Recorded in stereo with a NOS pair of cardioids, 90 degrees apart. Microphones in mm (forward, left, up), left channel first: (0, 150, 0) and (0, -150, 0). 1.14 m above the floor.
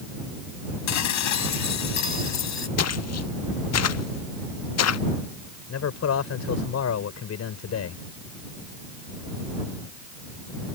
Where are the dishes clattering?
65° left.